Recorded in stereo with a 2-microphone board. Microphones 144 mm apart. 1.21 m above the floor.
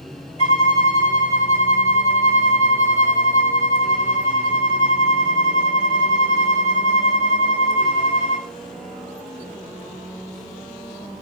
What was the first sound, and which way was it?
A violin, 40° left (ahead or behind).